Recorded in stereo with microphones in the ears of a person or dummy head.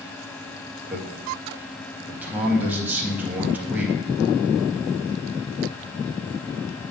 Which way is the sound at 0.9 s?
5° right (ahead or behind).